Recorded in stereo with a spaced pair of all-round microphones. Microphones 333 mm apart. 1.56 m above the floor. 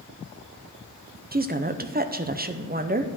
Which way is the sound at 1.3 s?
25° right (ahead or behind).